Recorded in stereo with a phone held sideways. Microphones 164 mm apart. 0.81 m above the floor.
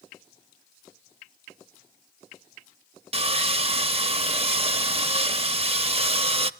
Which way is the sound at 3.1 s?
40° right (ahead or behind).